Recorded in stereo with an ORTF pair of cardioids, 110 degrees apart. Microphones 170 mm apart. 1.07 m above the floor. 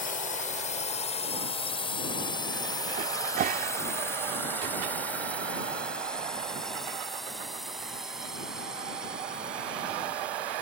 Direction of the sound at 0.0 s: 50° left.